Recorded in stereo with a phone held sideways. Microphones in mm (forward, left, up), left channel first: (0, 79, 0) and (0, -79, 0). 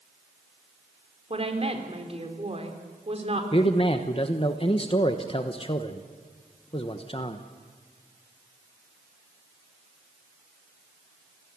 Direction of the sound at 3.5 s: 35° left (ahead or behind).